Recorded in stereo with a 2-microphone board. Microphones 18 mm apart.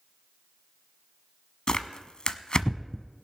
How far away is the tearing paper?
About 0.7 m.